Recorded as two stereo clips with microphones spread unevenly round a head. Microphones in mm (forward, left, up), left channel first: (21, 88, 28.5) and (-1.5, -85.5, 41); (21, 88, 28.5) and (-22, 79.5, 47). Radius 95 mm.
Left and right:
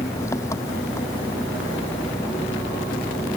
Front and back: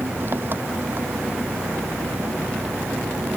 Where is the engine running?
155° left.